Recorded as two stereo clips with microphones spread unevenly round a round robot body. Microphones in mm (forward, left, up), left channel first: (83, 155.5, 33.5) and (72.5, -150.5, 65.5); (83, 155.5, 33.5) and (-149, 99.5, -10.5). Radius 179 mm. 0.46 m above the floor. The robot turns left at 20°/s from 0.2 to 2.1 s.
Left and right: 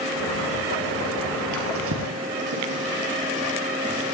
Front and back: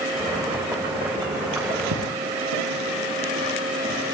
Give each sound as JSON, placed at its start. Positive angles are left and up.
{"t": 1.5, "sound": "a drawer", "azimuth_deg": -140, "distance_m": 3.5}